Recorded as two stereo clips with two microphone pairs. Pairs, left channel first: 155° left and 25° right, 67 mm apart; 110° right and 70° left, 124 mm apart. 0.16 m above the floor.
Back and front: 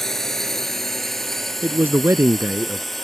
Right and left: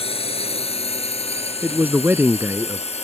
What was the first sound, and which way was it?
A drone, 125° right.